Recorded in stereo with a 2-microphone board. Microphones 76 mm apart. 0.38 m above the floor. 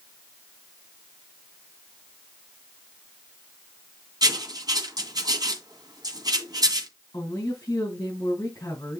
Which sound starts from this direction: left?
A woman speaking, at 7.1 s.